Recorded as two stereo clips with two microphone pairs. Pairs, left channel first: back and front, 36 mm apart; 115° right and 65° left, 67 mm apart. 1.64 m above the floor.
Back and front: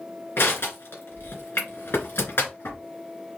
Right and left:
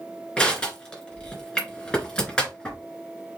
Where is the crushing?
165° left, 2.5 m.